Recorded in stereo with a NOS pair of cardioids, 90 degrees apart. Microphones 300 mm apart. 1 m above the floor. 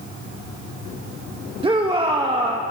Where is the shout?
20° right, 0.9 m.